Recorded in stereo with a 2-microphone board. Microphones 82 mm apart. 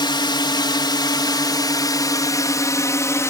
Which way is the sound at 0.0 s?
70° left (ahead or behind).